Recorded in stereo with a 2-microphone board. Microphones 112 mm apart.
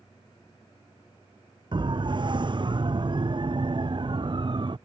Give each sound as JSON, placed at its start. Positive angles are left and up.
{"t": 1.7, "sound": "a siren", "side_deg": -45}